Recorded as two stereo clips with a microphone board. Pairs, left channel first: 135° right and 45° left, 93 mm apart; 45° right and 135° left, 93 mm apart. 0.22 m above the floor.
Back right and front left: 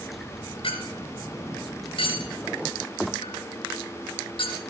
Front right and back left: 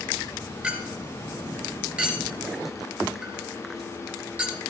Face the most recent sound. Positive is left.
turn(degrees=-150)